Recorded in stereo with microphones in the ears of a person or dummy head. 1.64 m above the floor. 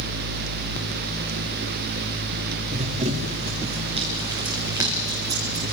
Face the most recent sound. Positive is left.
turn(degrees=-15)  # may be behind; listen again after turning